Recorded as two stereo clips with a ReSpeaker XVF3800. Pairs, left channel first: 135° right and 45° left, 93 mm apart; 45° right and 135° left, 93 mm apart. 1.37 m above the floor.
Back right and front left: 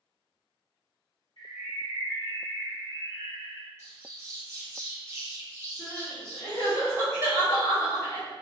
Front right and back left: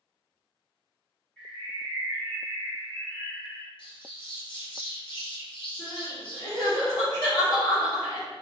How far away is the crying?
About 1.2 m.